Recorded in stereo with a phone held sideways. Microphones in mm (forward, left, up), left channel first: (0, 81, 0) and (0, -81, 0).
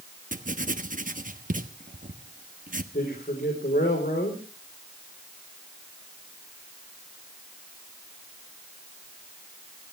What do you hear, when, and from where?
0.3 s writing: 55° right (ahead or behind), 1.1 m
2.9 s a man speaking: 75° left (ahead or behind), 4 m